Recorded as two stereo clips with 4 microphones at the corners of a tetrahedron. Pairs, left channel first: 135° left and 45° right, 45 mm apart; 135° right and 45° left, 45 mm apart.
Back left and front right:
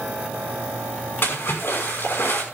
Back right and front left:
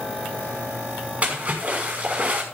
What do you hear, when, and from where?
1.2 s a splash: 100° left, 6 m